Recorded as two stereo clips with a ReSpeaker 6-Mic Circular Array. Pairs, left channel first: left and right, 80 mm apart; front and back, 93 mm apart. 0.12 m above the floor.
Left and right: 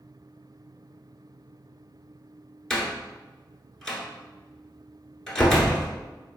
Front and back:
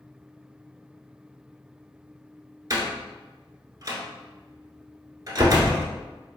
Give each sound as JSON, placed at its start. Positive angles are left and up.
{"t": 2.7, "sound": "a door slam", "azimuth_deg": 170, "distance_m": 1.1}